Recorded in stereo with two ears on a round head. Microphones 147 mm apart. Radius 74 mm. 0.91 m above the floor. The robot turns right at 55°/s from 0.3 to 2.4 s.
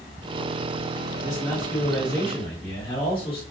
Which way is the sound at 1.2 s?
30° right.